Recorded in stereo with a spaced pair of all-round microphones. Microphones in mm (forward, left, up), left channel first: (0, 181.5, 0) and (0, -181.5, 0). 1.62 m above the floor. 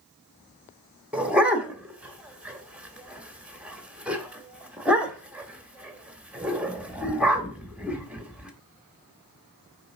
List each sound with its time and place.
1.1 s a dog barking: 5° right (ahead or behind), 1.2 m